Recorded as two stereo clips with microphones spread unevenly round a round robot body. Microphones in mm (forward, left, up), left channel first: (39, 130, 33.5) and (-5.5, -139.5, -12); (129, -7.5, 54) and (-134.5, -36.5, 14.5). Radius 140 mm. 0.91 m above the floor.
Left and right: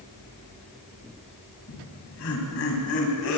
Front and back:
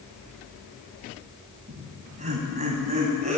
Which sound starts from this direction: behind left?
Laughter, at 1.7 s.